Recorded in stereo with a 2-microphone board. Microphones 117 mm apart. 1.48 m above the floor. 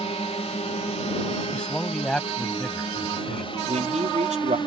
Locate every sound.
0.0 s a drone: 65° left (ahead or behind); by 4.7 s 45° left (ahead or behind)
1.5 s a man speaking: 10° left (ahead or behind)
3.7 s a man speaking: 80° right